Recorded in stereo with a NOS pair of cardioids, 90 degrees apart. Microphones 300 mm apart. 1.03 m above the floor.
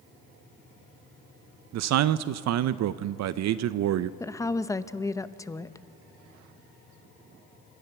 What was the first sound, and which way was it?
A man speaking, 65° right.